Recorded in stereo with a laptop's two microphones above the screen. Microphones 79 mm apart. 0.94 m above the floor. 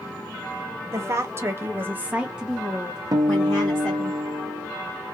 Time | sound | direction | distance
0.9 | a woman speaking | 35° right (ahead or behind) | 0.9 m
3.1 | a guitar | 55° right (ahead or behind) | 0.5 m